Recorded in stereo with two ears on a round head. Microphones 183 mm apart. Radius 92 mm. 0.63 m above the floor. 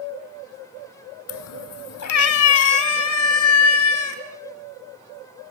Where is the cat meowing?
80° left, 0.8 m; by 4.2 s 85° left, 4 m.